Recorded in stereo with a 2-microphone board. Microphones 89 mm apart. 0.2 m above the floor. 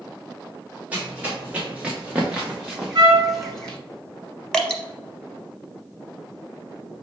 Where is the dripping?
10° left (ahead or behind), 0.7 m.